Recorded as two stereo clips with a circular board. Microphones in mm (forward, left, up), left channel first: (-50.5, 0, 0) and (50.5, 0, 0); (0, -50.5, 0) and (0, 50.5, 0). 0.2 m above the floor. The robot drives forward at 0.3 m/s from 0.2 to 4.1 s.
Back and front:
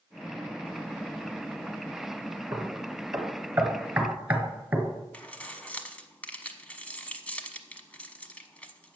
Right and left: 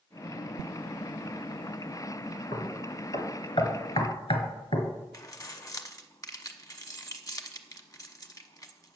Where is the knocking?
60° right, 1.9 m; by 4.9 s 75° right, 1.7 m.